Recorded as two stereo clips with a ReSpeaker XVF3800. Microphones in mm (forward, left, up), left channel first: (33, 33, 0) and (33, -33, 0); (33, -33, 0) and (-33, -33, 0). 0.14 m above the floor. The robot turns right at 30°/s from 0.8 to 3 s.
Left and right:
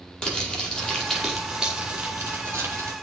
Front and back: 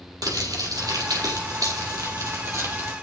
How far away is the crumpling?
About 5 m.